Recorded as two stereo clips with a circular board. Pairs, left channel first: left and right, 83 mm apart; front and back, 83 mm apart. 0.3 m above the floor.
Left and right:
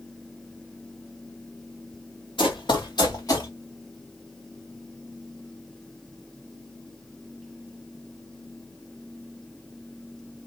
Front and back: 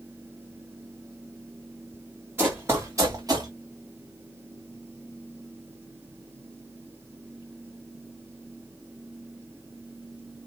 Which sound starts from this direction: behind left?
Running footsteps, at 2.4 s.